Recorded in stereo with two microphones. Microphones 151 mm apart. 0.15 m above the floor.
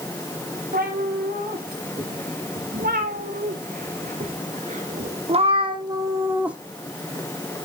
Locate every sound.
0.7 s a cat meowing: 90° right, 3 m; by 6.6 s 5° right (ahead or behind), 0.9 m